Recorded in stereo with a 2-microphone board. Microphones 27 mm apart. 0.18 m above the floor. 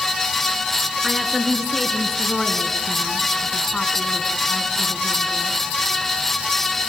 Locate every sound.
1.0 s a woman speaking: 10° right (ahead or behind), 3 m; by 5.6 s 55° left (ahead or behind), 3 m